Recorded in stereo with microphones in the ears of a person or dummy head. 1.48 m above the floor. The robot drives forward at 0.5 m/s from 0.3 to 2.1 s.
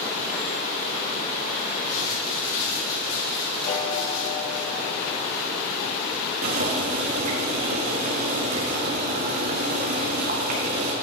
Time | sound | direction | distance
1.9 | crumpling | 80° left | 4.5 m
3.7 | a piano | 45° left (ahead or behind) | 2 m
6.4 | boiling | 50° right (ahead or behind) | 1.7 m